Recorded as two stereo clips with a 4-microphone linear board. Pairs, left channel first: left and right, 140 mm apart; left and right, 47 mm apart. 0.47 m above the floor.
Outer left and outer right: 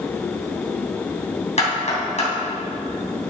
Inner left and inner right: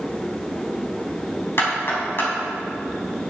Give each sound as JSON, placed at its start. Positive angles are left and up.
{"t": 1.6, "sound": "knocking", "side_deg": 55, "distance_m": 3.0}